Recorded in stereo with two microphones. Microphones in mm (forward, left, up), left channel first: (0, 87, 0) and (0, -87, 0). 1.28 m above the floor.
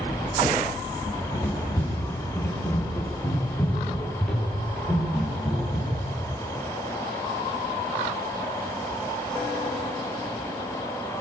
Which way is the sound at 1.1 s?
20° left (ahead or behind).